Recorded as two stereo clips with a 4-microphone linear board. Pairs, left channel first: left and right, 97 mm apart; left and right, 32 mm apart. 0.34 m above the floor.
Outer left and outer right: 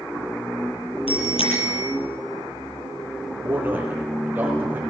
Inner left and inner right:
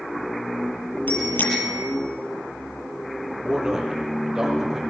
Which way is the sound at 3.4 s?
20° right (ahead or behind).